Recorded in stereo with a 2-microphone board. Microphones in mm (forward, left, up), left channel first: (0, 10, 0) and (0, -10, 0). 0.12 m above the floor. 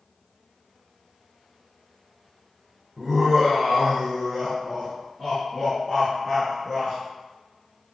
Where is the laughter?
20° right (ahead or behind), 1.3 m; by 7.0 s centre (ahead or behind), 2 m.